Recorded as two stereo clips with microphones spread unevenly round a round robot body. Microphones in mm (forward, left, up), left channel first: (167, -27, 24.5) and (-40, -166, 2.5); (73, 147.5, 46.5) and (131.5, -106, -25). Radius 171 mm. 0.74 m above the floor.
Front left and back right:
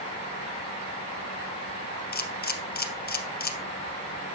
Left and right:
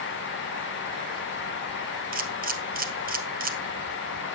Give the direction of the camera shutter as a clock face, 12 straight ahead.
1 o'clock.